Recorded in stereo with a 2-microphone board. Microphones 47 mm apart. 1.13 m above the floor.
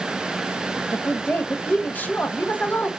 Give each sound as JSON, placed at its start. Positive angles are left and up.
{"t": 0.9, "sound": "a woman speaking", "side_deg": 40, "distance_m": 0.6}